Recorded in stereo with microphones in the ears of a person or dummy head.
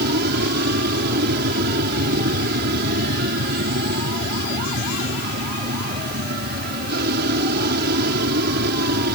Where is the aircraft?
55° right (ahead or behind).